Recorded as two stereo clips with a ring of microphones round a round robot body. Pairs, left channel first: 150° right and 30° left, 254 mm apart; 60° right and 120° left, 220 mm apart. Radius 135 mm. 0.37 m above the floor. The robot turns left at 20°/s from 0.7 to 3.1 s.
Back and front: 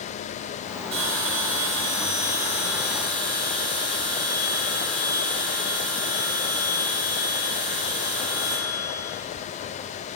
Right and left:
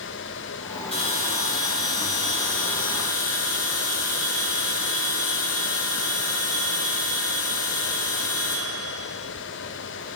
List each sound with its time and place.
0.9 s a bell: 5° left, 6 m; by 9.2 s 40° right, 6 m